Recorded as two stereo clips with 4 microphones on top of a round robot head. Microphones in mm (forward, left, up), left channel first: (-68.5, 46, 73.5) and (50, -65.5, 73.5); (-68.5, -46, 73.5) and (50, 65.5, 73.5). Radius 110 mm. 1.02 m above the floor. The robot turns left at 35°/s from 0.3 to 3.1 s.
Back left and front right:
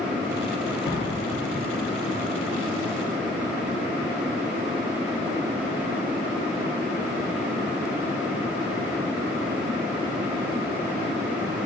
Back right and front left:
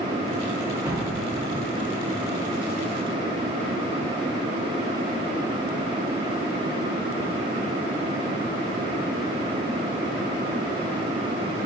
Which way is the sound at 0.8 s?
120° left.